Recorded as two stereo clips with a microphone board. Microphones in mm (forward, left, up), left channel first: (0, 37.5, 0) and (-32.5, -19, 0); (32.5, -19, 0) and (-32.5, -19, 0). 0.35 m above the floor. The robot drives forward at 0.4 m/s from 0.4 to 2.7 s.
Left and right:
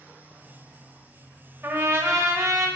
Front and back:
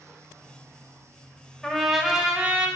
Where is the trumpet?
80° right, 0.6 m; by 2.7 s 125° right, 0.7 m.